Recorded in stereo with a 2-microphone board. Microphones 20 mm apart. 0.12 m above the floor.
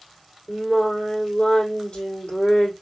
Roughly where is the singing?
Left.